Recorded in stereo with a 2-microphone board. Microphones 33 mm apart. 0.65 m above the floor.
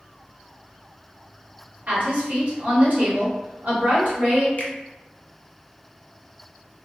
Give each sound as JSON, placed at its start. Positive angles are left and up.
{"t": 1.9, "sound": "a woman speaking", "side_deg": -55, "distance_m": 1.3}
{"t": 4.6, "sound": "a finger snap", "side_deg": 65, "distance_m": 0.7}